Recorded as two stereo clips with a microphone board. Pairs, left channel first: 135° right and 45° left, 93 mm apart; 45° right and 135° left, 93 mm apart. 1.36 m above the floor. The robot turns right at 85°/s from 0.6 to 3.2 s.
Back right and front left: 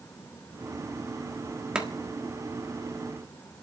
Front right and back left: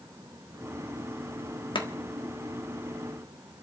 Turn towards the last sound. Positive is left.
turn(degrees=90)